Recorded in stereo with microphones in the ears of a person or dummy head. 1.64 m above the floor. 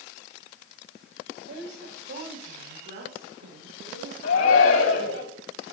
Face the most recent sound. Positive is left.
turn(degrees=85)